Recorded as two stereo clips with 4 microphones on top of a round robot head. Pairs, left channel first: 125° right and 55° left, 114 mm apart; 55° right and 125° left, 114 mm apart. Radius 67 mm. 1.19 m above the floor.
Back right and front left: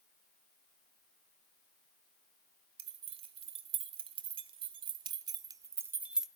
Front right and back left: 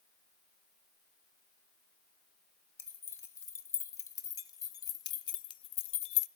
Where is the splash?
No splash in this recording.